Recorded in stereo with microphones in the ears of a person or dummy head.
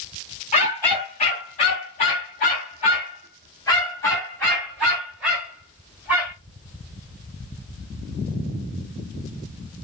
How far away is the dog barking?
About 2 m.